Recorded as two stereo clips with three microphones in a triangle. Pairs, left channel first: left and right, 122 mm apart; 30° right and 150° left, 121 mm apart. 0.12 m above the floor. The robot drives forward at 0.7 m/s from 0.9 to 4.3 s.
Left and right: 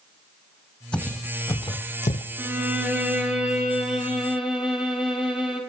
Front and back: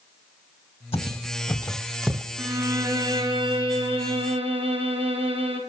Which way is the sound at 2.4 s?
150° right.